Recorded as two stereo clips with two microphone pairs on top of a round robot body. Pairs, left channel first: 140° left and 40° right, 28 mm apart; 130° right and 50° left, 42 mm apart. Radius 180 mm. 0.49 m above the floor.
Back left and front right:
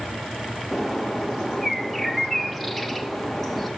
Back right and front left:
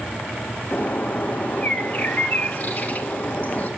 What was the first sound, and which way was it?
A bird, 120° right.